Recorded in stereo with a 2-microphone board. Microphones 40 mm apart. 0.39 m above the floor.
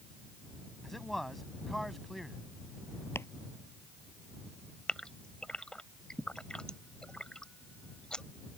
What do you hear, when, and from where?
0.8 s a man speaking: 5° left (ahead or behind)
3.1 s chopping: 75° left (ahead or behind)
4.9 s a gasp: 20° left (ahead or behind)